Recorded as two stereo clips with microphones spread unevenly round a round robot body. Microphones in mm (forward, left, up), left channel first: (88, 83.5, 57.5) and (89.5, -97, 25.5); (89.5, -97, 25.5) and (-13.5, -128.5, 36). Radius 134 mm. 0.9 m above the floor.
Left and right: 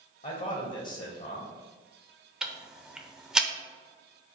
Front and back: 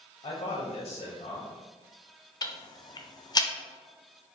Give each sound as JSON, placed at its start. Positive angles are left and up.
{"t": 0.2, "sound": "a man speaking", "azimuth_deg": 45, "distance_m": 0.7}
{"t": 2.4, "sound": "ticking", "azimuth_deg": -15, "distance_m": 0.5}